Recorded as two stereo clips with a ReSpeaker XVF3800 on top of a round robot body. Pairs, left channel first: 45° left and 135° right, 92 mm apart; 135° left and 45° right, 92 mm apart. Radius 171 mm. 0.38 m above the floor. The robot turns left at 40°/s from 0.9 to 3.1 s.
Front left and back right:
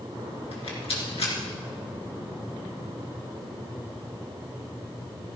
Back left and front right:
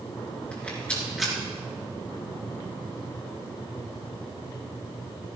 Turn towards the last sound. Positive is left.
turn(degrees=-30)